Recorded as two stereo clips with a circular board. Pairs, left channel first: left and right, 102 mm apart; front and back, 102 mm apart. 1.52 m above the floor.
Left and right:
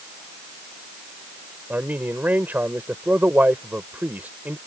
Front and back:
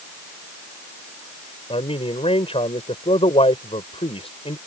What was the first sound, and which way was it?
A man speaking, 15° right.